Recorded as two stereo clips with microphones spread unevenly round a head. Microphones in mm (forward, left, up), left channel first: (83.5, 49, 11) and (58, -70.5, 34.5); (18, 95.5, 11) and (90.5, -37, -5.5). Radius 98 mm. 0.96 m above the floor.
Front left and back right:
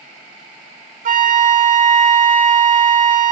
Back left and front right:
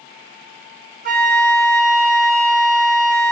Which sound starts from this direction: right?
A flute, at 1.1 s.